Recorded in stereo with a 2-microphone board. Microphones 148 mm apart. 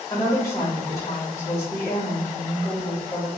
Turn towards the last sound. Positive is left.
turn(degrees=20)  # may be behind; listen again after turning